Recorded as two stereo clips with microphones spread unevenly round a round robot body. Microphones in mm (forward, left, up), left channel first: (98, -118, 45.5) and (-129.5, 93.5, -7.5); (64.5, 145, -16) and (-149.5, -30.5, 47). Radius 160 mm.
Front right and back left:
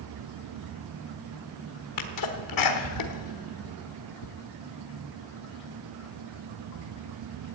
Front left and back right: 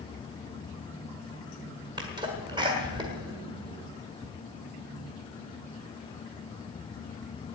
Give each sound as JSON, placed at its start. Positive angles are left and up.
{"t": 2.0, "sound": "a sneeze", "azimuth_deg": -60, "distance_m": 1.4}